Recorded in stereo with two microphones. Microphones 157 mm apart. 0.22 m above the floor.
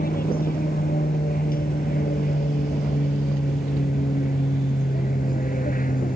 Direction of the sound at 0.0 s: 70° left (ahead or behind).